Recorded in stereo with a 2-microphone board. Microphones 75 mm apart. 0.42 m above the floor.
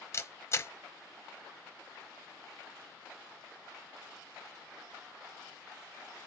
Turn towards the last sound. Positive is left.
turn(degrees=35)  # may be behind; listen again after turning